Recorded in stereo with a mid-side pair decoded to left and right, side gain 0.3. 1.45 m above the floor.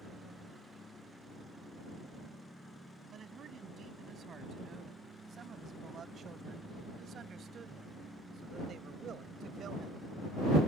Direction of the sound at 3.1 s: 70° right.